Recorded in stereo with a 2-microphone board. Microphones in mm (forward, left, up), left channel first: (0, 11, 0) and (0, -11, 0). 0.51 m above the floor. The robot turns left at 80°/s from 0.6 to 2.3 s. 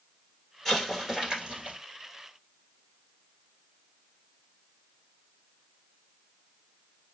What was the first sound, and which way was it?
An explosion, 30° left.